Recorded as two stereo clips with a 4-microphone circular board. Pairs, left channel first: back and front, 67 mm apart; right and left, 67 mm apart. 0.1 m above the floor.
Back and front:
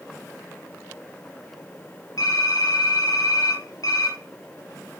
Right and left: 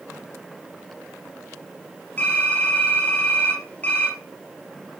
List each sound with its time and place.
2.2 s typing on a keyboard: 150° right, 4.5 m